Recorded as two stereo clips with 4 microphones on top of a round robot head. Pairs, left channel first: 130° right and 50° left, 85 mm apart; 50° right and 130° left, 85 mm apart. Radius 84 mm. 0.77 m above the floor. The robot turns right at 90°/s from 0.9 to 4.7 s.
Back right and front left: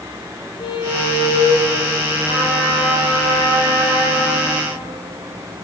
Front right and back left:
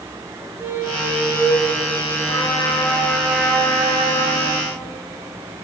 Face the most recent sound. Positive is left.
turn(degrees=-170)